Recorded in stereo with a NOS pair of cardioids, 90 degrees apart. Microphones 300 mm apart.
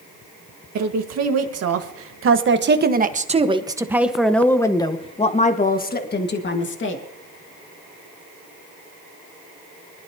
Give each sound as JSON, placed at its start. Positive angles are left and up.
{"t": 0.8, "sound": "a woman speaking", "azimuth_deg": -65, "distance_m": 1.9}